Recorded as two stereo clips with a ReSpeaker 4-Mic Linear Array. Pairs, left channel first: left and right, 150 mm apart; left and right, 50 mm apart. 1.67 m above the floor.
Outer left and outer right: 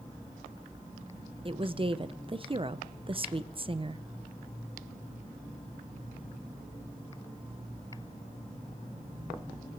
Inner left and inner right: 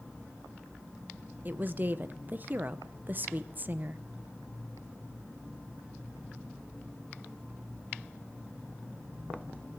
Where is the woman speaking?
35° right (ahead or behind), 0.8 m.